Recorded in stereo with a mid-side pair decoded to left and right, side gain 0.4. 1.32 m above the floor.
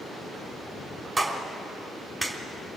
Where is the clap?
30° right, 3.5 m.